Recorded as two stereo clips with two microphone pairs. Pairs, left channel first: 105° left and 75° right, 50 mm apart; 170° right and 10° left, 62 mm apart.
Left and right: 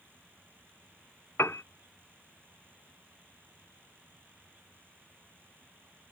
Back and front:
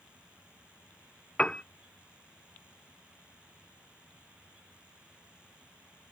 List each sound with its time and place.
1.4 s a piano: 115° left